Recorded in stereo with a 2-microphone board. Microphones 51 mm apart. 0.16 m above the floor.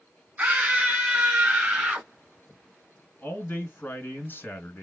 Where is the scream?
30° right (ahead or behind), 1.2 m; by 2.1 s 25° right (ahead or behind), 1.5 m.